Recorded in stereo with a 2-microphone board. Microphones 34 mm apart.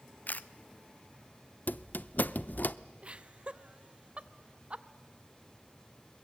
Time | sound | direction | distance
0.3 | a camera shutter | 55° left (ahead or behind) | 0.5 m
1.7 | a squeak | 60° left (ahead or behind) | 0.5 m
3.0 | laughter | 35° right (ahead or behind) | 0.8 m